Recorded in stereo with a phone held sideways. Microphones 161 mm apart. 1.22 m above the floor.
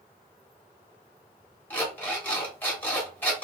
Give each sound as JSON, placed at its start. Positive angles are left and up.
{"t": 1.7, "sound": "an alarm clock", "side_deg": 10, "distance_m": 1.1}